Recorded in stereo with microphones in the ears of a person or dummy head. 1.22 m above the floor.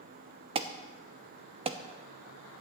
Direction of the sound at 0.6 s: 30° right (ahead or behind).